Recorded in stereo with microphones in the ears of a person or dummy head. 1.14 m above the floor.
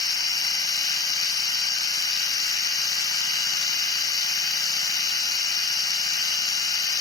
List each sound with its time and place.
0.0 s a machine running: 20° left (ahead or behind), 4 m